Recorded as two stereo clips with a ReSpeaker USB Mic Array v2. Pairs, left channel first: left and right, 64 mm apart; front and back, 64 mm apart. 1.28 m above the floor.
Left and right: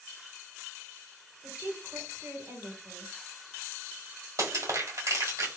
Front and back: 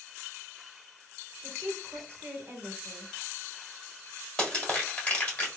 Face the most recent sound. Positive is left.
turn(degrees=-70)